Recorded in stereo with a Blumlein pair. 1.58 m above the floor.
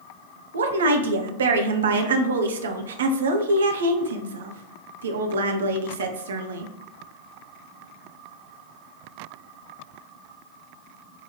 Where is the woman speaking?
65° right, 0.8 m.